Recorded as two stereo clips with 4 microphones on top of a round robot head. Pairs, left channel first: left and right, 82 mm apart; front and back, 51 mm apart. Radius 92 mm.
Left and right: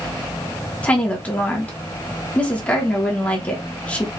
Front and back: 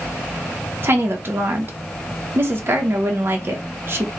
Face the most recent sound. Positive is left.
turn(degrees=160)